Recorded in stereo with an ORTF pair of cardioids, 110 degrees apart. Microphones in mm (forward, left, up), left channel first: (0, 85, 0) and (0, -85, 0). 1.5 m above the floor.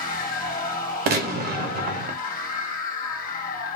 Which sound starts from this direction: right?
A gunshot, at 1.1 s.